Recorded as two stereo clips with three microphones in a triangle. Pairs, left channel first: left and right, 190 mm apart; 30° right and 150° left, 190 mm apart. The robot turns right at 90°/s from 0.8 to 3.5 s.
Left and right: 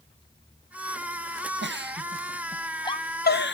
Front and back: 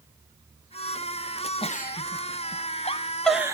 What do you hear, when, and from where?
1.6 s a giggle: 90° right, 0.5 m; by 3.5 s 80° left, 0.5 m